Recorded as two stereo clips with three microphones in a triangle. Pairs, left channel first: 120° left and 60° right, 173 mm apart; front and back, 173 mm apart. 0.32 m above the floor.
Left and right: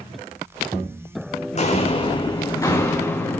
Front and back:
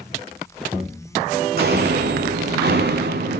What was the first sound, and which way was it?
Footsteps, 165° left.